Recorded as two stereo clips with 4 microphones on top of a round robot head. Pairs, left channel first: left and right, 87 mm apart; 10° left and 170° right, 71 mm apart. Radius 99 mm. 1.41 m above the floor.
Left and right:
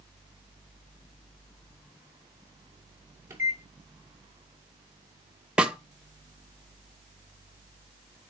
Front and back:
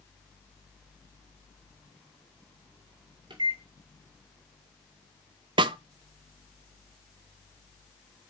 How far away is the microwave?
About 2 m.